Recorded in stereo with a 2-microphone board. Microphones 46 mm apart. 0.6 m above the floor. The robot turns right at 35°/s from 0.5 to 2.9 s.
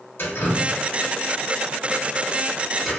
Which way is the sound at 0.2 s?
60° left (ahead or behind).